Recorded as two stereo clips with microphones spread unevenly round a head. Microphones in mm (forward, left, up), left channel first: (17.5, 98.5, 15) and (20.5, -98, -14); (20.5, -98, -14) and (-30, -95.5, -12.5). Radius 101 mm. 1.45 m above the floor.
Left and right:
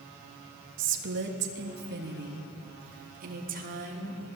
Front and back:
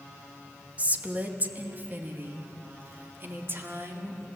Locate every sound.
0.8 s a woman speaking: 120° right, 2.5 m; by 4.3 s 140° right, 4.5 m